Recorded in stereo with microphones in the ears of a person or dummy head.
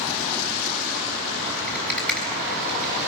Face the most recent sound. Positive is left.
turn(degrees=10)  # may be behind; listen again after turning